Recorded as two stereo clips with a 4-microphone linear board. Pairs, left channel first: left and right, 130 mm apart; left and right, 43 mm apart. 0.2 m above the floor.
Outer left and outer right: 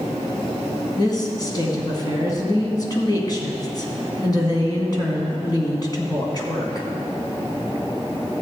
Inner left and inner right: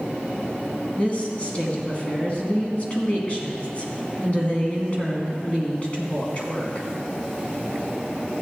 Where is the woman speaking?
35° left (ahead or behind), 1.7 m.